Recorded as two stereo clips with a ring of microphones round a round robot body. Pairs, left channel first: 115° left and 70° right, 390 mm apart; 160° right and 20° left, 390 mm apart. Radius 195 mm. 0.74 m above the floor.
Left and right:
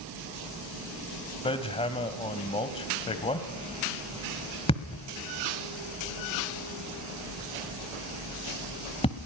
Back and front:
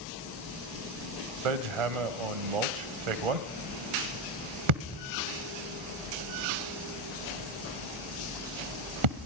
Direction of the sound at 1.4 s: 35° left.